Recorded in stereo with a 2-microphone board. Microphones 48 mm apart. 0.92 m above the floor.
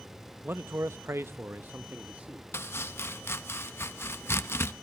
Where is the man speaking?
45° right (ahead or behind), 0.7 m; by 2.5 s 30° right (ahead or behind), 1.4 m.